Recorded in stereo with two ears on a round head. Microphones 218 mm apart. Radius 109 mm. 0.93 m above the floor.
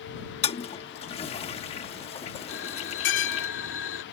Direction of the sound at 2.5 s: 55° left (ahead or behind).